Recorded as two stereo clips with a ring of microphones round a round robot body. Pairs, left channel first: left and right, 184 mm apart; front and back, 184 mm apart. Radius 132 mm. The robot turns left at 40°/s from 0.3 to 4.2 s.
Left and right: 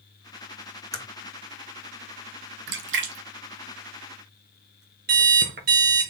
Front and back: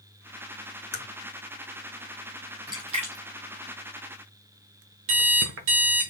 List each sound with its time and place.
0.9 s a crack: 20° left, 1.9 m; by 1.1 s 10° left, 1.9 m
2.7 s a splash: 105° right, 0.8 m; by 4.8 s 165° right, 0.8 m
5.1 s an alarm clock: 145° right, 0.8 m